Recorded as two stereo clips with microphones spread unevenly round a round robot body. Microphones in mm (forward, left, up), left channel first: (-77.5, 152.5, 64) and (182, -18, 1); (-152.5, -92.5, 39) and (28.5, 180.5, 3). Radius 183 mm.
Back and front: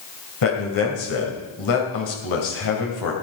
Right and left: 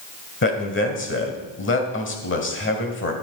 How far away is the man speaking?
About 2.5 m.